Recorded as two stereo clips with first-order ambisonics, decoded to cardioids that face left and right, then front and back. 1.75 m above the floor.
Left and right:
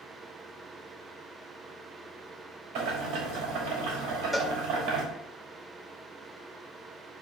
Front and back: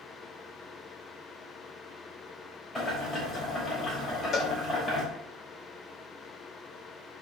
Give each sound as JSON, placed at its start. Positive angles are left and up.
{"t": 2.8, "sound": "boiling", "azimuth_deg": -75, "distance_m": 4.0}
{"t": 4.3, "sound": "a cowbell", "azimuth_deg": 0, "distance_m": 0.7}